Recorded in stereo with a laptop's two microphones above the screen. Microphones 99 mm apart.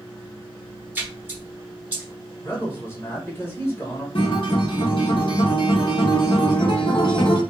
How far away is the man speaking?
About 0.9 m.